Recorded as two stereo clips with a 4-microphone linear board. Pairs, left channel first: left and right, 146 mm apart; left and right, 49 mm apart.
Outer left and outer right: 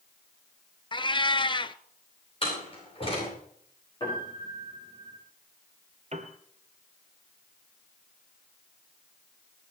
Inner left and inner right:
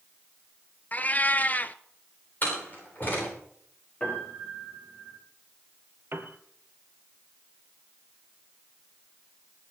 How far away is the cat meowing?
About 0.6 m.